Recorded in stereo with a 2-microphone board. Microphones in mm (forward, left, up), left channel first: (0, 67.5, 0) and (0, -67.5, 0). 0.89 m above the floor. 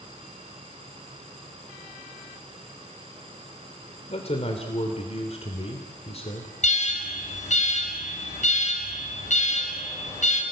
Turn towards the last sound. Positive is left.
turn(degrees=55)  # may be behind; listen again after turning